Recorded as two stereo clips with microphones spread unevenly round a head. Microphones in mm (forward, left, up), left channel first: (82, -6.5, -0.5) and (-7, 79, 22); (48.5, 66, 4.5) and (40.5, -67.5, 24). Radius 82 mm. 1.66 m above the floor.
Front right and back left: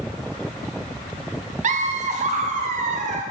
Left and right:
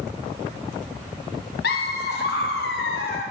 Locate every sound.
1.6 s laughter: 120° left, 1.0 m